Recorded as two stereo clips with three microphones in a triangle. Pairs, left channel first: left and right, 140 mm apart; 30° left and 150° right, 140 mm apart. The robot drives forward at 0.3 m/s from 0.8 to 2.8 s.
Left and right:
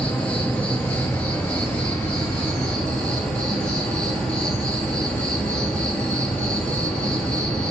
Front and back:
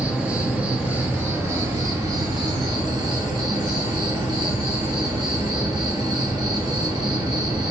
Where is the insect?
150° left, 0.9 m; by 7.7 s 170° left, 1.3 m.